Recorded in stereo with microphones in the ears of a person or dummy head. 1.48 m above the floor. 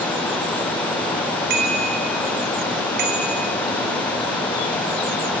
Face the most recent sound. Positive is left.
turn(degrees=-55)  # may be behind; listen again after turning